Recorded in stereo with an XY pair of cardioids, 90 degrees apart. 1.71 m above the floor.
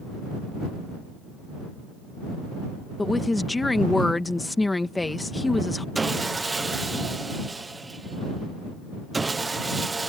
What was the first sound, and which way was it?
A woman speaking, 15° left.